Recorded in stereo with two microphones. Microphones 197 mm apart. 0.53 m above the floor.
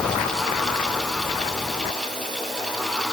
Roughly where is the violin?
I don't hear a violin.